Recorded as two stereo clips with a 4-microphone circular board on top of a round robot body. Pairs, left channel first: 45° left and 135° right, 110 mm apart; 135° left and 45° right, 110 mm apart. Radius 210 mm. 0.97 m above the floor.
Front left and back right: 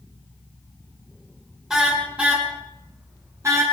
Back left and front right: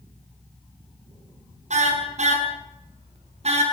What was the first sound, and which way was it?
A car horn, 50° right.